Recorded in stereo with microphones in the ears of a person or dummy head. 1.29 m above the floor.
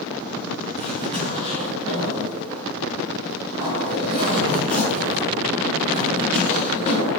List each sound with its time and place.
0.8 s a zipper: 30° right (ahead or behind), 2.5 m